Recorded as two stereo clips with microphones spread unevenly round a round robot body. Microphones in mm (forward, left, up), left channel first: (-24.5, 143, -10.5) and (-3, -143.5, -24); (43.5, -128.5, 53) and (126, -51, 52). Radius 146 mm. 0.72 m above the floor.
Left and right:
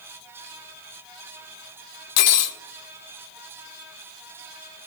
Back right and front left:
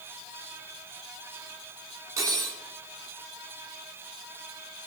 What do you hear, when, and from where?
2.2 s cutlery clinking: 115° left, 0.8 m